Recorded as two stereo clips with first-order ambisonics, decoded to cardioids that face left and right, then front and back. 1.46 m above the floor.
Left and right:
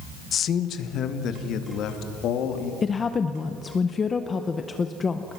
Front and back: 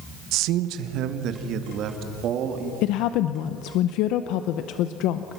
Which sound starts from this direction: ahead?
A woman speaking, at 2.8 s.